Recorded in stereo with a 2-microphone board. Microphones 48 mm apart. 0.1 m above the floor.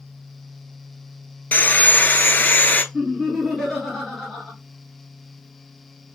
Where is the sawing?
40° left (ahead or behind), 0.6 m.